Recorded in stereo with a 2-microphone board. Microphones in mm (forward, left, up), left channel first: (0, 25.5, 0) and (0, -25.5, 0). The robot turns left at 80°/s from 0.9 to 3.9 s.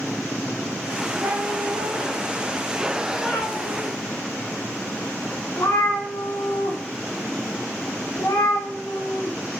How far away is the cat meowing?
About 5 m.